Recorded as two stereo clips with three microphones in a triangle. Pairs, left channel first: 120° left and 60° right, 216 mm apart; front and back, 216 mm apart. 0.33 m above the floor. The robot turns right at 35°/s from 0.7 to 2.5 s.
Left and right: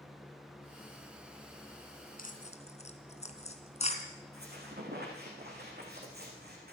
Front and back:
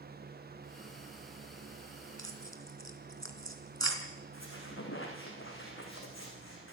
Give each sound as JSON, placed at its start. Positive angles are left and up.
{"t": 2.2, "sound": "tearing paper", "azimuth_deg": 165, "distance_m": 2.5}
{"t": 4.3, "sound": "a squeak", "azimuth_deg": -15, "distance_m": 7.0}